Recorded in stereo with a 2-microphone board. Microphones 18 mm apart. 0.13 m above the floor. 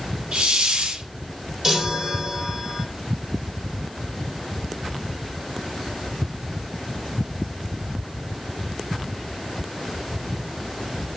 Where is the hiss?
50° right (ahead or behind), 3 m.